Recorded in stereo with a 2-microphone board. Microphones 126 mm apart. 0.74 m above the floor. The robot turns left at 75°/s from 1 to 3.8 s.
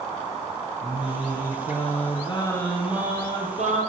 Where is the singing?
135° left, 4 m; by 3.8 s 75° right, 4 m.